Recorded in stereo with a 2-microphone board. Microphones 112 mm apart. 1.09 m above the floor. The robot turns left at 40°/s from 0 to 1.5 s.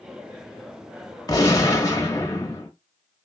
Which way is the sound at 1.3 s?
35° left (ahead or behind).